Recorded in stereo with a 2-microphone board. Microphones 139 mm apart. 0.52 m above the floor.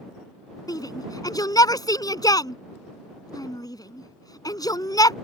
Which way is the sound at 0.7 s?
30° left (ahead or behind).